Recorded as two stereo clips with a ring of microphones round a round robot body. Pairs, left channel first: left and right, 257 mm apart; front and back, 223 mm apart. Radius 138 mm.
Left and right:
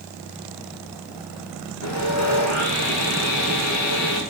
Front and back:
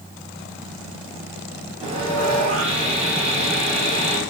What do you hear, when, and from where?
1.8 s sawing: 120° left, 3.5 m